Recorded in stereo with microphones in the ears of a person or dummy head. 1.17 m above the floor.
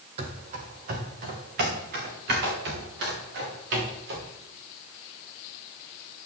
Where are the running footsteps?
40° right (ahead or behind), 2 m; by 4.3 s 65° right (ahead or behind), 8 m.